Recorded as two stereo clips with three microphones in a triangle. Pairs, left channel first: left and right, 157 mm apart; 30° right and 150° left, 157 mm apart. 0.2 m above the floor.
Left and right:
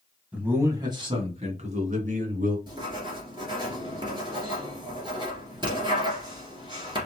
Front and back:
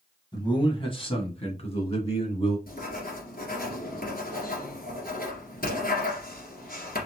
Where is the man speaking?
15° right, 1.6 m; by 2.6 s 75° right, 3 m.